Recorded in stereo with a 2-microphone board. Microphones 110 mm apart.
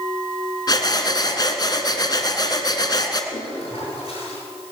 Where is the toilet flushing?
80° left, 8.5 m.